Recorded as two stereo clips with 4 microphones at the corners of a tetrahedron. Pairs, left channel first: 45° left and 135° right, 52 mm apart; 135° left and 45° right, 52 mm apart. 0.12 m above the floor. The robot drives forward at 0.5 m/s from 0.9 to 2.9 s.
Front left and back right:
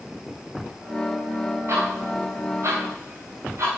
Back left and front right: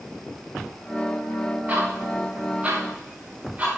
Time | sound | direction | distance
1.7 | ticking | 100° right | 7.5 m